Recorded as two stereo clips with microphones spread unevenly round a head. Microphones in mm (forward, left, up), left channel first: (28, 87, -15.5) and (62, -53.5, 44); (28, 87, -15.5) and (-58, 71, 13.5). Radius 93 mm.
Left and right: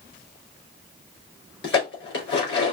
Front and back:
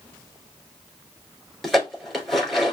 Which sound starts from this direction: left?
Dishes clattering, at 1.6 s.